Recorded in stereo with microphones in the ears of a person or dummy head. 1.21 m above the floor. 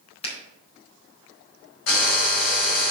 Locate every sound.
0.2 s a finger snap: 40° left (ahead or behind), 4 m
1.9 s a drill: 80° left, 3 m